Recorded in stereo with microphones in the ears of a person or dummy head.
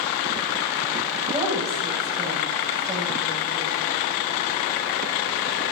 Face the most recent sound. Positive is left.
turn(degrees=-10)  # may be behind; listen again after turning